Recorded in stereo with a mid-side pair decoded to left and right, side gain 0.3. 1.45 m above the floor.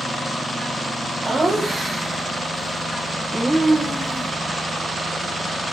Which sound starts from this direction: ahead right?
Laughter, at 1.2 s.